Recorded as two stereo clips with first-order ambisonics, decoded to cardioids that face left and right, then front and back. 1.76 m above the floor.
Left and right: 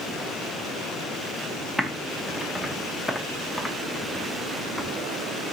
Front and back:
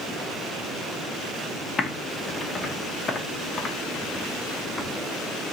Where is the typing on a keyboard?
10° left, 0.5 m.